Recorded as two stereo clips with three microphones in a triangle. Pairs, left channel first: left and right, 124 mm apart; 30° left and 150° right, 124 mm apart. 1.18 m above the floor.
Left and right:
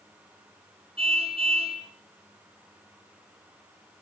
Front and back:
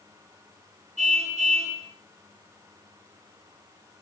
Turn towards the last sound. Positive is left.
turn(degrees=-130)